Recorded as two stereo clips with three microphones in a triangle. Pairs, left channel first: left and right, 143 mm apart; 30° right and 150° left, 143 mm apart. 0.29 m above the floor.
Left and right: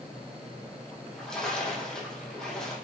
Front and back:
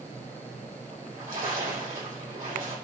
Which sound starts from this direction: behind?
A splash, at 0.9 s.